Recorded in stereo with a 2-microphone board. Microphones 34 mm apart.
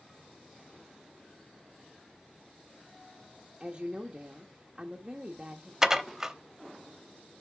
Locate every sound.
3.6 s a woman speaking: 30° right (ahead or behind), 0.9 m
5.8 s dishes clattering: 15° right (ahead or behind), 0.7 m